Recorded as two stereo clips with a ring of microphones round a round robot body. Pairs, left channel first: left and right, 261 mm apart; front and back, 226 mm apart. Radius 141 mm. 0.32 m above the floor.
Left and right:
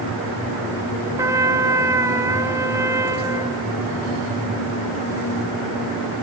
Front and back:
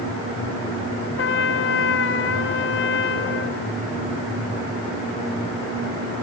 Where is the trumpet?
15° right, 1.4 m.